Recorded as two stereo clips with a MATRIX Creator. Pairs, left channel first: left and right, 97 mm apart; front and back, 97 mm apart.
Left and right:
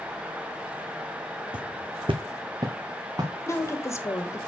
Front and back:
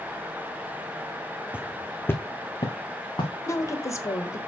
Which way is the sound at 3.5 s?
45° left.